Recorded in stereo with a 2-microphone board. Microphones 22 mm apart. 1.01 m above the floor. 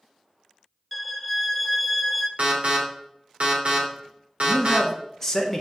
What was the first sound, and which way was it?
A violin, 5° left (ahead or behind).